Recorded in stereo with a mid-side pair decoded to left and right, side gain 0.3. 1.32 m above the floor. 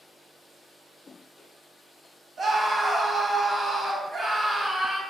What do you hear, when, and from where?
2.4 s a scream: 65° right, 1.5 m